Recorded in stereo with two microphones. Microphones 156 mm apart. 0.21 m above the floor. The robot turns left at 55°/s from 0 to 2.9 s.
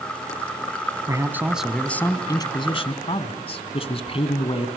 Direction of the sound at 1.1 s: 145° right.